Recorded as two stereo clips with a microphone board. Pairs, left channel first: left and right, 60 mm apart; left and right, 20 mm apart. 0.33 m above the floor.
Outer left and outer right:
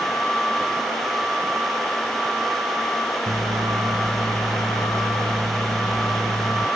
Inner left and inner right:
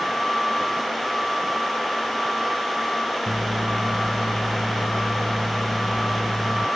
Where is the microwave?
65° right (ahead or behind).